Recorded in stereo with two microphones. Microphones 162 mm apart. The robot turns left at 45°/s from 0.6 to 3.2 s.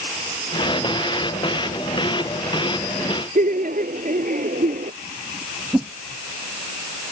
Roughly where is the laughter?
Right.